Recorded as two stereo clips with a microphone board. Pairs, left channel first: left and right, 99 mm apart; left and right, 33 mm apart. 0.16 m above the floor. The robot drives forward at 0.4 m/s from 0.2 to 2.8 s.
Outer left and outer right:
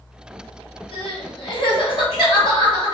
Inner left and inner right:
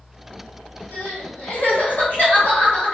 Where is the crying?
60° left (ahead or behind), 1.6 m; by 2.9 s 45° left (ahead or behind), 2 m.